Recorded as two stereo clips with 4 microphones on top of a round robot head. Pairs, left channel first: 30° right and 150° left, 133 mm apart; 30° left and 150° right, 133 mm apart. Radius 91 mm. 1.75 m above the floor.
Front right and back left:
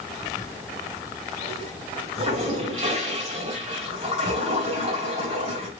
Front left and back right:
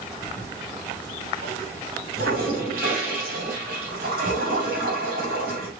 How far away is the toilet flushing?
About 2.5 m.